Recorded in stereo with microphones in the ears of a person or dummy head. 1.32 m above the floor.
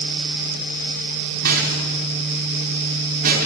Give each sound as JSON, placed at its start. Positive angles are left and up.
{"t": 1.4, "sound": "a rattle", "side_deg": -50, "distance_m": 4.5}